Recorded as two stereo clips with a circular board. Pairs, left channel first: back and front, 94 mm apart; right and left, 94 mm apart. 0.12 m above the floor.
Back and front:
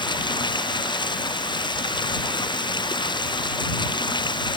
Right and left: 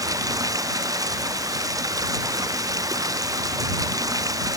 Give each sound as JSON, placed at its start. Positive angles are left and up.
{"t": 0.0, "sound": "running water", "azimuth_deg": 140}